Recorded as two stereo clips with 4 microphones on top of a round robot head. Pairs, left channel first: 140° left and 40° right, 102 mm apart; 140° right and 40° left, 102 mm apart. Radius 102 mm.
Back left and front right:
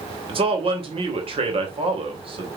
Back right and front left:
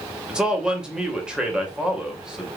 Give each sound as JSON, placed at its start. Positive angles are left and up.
{"t": 0.3, "sound": "a man speaking", "azimuth_deg": -40, "distance_m": 2.5}